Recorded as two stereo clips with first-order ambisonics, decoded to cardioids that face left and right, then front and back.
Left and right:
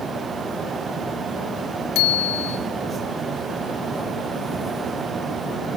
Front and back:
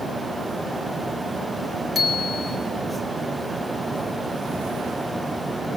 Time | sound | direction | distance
1.9 | a bicycle bell | 70° left | 3.5 m